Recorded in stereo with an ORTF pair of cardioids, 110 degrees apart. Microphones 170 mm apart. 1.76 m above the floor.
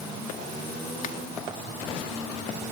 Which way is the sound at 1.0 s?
55° left.